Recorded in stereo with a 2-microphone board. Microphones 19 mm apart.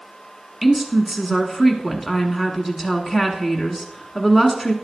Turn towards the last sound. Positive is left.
turn(degrees=-10)  # may be behind; listen again after turning